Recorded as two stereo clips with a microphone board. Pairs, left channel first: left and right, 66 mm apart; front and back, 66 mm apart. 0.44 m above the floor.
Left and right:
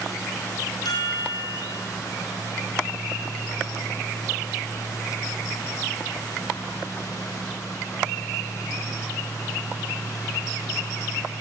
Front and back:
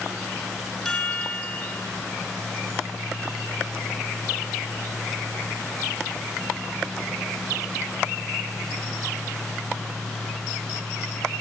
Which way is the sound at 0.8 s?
85° left.